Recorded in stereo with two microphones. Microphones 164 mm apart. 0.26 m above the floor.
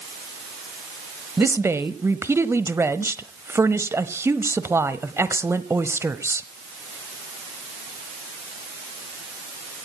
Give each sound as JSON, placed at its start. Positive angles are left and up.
{"t": 1.4, "sound": "a woman speaking", "side_deg": -15, "distance_m": 0.9}